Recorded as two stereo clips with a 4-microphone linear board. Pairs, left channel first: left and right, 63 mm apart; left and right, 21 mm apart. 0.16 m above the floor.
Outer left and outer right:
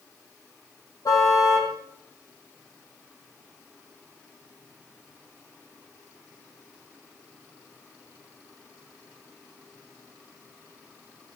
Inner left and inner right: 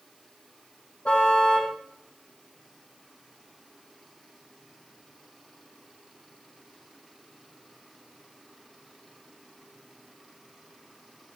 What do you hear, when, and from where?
1.1 s a car horn: 65° left (ahead or behind), 4 m